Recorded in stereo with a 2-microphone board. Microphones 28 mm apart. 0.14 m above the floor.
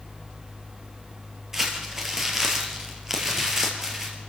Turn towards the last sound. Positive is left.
turn(degrees=-15)  # may be behind; listen again after turning